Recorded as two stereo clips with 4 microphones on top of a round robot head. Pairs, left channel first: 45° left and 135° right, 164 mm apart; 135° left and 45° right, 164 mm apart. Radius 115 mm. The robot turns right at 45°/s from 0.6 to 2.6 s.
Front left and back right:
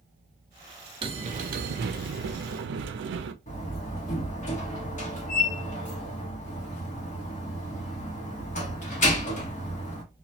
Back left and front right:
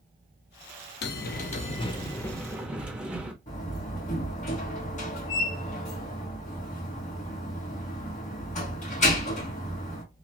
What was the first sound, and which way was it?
A bell, 160° left.